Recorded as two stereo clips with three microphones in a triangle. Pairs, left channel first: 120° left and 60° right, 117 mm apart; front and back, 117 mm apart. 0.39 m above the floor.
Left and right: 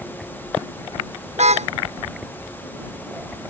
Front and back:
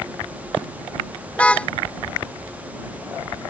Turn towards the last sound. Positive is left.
turn(degrees=-80)